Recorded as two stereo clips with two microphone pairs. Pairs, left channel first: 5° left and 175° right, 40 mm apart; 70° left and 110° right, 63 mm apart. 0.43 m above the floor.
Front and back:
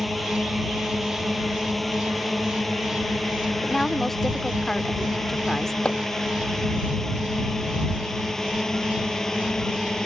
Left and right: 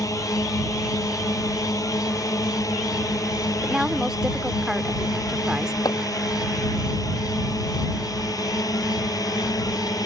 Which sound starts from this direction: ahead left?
Chopping, at 5.8 s.